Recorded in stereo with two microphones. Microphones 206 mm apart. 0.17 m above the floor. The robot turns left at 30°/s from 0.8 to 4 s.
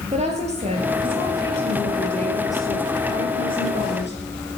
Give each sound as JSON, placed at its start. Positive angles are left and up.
{"t": 0.1, "sound": "a woman speaking", "azimuth_deg": -145, "distance_m": 4.0}